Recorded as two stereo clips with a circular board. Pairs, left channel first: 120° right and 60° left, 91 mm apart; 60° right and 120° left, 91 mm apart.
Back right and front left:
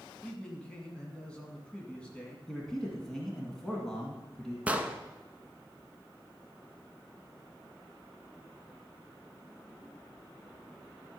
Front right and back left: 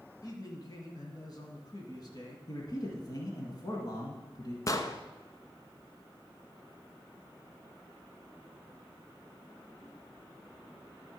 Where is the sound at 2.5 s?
35° right, 1.5 m.